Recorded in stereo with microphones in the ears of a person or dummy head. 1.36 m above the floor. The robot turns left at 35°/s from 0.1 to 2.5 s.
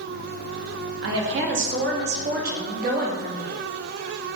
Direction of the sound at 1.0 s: 75° right.